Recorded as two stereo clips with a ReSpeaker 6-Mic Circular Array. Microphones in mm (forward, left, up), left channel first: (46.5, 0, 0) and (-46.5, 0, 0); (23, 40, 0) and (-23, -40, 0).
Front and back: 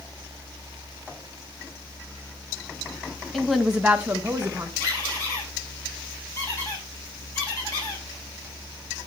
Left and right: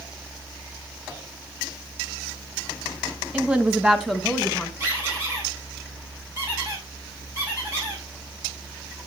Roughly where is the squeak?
Ahead right.